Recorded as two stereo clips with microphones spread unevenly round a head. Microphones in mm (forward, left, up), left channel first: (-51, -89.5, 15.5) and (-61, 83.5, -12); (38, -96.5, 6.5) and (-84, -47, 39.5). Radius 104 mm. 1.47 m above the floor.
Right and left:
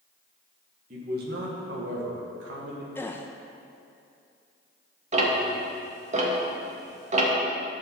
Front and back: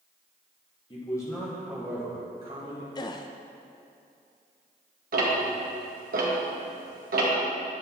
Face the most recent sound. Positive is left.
turn(degrees=140)